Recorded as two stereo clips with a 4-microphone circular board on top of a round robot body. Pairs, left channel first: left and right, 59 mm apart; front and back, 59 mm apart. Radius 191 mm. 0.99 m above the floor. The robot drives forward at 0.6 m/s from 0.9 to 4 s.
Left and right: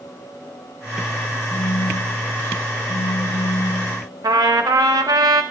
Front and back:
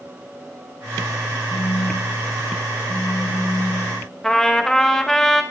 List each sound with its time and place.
1.5 s a phone buzzing: 45° left, 1.5 m; by 4.0 s 115° left, 1.2 m
4.2 s a trumpet: 85° right, 0.6 m